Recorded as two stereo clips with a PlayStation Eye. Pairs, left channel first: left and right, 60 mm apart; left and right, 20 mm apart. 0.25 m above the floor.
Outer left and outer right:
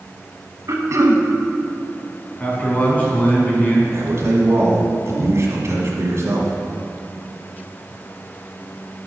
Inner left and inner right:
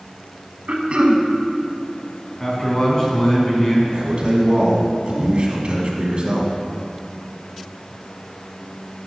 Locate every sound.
0.7 s throat clearing: 60° right (ahead or behind), 0.8 m
2.4 s a man speaking: 30° left (ahead or behind), 1.9 m
3.9 s a man speaking: 50° right (ahead or behind), 1.6 m